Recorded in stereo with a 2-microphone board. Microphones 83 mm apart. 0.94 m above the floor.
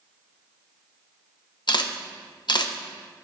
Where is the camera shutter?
65° left (ahead or behind), 0.7 m.